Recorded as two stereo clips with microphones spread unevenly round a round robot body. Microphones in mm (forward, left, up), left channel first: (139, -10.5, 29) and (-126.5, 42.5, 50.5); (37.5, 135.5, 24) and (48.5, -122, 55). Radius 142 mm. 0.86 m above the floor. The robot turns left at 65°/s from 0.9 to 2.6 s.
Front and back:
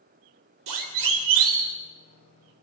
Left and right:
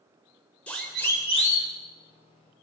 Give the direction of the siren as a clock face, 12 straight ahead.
6 o'clock.